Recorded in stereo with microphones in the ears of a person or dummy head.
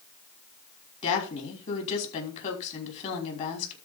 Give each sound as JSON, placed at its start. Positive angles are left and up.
{"t": 1.0, "sound": "a woman speaking", "side_deg": 40, "distance_m": 5.5}